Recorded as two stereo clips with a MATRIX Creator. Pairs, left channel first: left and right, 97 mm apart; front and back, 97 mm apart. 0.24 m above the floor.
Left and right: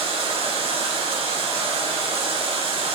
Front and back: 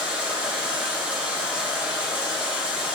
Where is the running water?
100° right, 1.0 m.